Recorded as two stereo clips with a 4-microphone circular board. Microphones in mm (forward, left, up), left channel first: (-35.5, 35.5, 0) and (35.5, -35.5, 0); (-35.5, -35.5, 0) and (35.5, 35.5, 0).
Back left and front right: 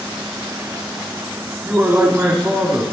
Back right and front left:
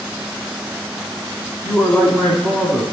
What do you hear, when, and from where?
1.6 s a man speaking: 85° right, 1.3 m